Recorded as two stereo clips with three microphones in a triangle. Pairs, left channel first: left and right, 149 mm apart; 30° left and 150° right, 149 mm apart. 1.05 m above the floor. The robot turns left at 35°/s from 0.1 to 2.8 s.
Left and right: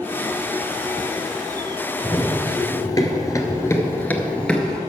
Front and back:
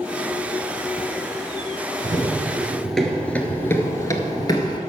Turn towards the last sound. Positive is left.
turn(degrees=5)